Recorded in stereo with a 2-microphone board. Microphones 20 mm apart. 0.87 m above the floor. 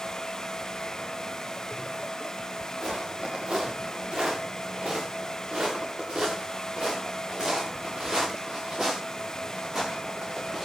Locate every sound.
2.8 s footsteps: 70° right (ahead or behind), 6.5 m; by 10.7 s 35° right (ahead or behind), 6.5 m